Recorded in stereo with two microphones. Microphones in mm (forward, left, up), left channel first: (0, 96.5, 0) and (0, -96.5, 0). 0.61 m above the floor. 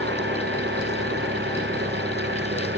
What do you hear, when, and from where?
0.0 s an engine running: 70° right (ahead or behind)